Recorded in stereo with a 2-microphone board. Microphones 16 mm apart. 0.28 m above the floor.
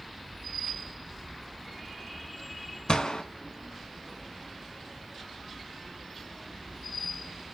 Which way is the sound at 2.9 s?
75° left (ahead or behind).